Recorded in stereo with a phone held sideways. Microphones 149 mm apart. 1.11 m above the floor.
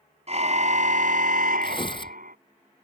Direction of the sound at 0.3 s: 50° right (ahead or behind).